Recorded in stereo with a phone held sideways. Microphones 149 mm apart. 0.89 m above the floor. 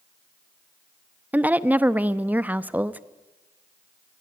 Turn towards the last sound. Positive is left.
turn(degrees=-10)  # may be behind; listen again after turning